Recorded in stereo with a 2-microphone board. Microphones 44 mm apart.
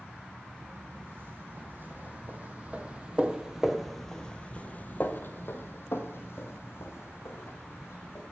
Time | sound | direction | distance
0.6 | footsteps | 50° right (ahead or behind) | 2 m